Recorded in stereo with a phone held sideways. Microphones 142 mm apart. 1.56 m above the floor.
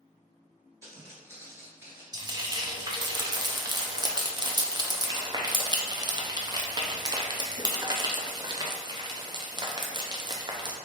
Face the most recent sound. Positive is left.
turn(degrees=-30)  # may be behind; listen again after turning